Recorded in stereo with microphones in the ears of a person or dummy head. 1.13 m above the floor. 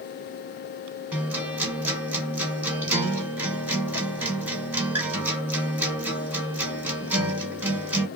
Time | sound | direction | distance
1.1 | a guitar | 10° right (ahead or behind) | 1.1 m